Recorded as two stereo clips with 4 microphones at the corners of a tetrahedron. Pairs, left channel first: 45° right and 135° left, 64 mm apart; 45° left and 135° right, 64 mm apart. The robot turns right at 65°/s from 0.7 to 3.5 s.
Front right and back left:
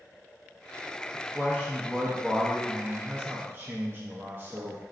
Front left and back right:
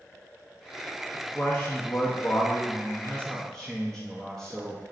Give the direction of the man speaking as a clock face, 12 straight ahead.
1 o'clock.